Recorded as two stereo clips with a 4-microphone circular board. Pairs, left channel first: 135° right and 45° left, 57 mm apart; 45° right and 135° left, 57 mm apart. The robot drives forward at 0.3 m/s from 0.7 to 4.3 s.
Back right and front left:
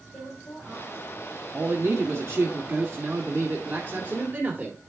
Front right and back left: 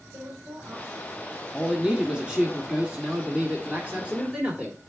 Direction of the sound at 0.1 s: 170° left.